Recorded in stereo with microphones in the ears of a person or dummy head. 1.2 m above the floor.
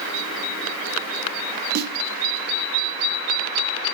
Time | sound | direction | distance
1.8 | a snare drum | 50° right (ahead or behind) | 1.1 m